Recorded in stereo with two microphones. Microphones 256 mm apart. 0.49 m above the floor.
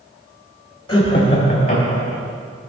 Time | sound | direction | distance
0.9 | laughter | 20° left (ahead or behind) | 2.5 m